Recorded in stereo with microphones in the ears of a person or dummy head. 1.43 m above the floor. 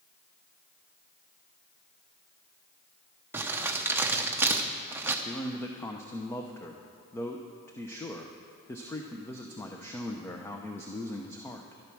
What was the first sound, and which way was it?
Crumpling, 10° right (ahead or behind).